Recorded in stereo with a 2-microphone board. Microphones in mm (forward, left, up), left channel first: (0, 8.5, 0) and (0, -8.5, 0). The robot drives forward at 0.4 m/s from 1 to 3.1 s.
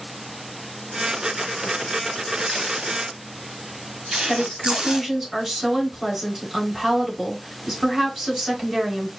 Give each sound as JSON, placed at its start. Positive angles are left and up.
{"t": 2.4, "sound": "tape being pulled", "side_deg": -70, "distance_m": 0.9}
{"t": 4.3, "sound": "a woman speaking", "side_deg": -30, "distance_m": 2.5}